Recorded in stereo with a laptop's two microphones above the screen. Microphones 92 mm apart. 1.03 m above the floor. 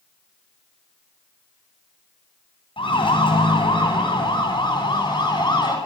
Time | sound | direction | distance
2.8 | a siren | 65° left (ahead or behind) | 9 m